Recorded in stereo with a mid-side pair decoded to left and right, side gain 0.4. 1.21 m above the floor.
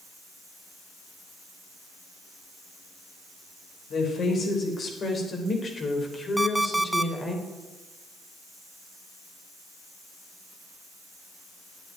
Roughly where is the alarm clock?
Ahead.